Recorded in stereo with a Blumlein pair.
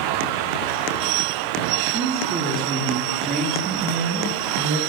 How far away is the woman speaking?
About 2.5 m.